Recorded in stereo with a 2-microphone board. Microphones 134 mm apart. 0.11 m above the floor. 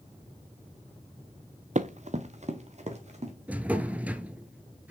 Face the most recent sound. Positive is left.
turn(degrees=-10)  # may be behind; listen again after turning